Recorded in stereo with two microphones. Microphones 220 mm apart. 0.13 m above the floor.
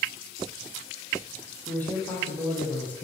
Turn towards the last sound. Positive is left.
turn(degrees=5)  # may be behind; listen again after turning